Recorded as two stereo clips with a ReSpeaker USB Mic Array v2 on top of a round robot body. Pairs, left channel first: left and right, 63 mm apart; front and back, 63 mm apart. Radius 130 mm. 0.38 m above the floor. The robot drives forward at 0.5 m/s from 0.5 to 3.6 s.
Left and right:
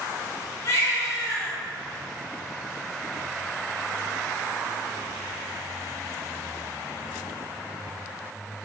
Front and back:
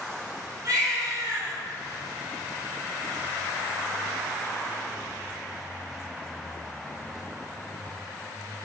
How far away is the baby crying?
About 4 m.